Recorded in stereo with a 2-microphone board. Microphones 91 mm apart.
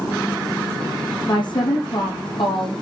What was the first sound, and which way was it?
A woman speaking, 55° left (ahead or behind).